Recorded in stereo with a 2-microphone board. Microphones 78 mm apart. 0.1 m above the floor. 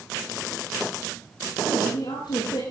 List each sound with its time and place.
1.6 s a woman speaking: 75° left (ahead or behind), 8 m